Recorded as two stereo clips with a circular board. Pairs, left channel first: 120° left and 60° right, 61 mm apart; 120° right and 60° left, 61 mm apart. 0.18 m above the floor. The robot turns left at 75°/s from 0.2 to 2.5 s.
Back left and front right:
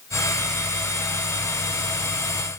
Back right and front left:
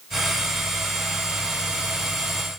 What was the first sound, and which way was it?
Only background noise.